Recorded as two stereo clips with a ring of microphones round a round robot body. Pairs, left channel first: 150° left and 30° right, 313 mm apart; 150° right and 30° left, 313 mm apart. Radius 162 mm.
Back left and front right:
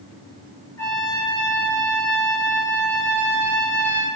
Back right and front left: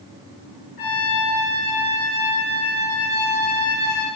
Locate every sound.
0.8 s a trumpet: 130° right, 8 m